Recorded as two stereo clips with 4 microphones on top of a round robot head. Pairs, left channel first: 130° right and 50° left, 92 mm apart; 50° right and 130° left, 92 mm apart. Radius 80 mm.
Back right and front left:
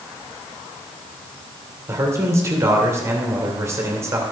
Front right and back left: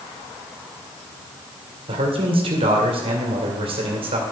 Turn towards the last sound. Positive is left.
turn(degrees=110)